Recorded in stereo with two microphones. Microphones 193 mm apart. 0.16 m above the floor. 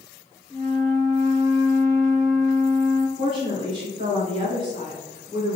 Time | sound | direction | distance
0.5 | a flute | 20° left (ahead or behind) | 0.8 m
3.2 | a woman speaking | 30° right (ahead or behind) | 1.9 m